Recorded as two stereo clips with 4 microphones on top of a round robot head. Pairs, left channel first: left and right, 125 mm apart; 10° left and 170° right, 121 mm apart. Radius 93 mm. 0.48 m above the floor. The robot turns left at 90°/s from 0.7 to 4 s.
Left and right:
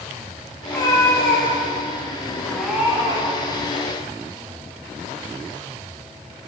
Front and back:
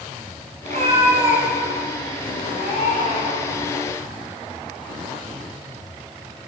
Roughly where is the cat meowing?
Behind.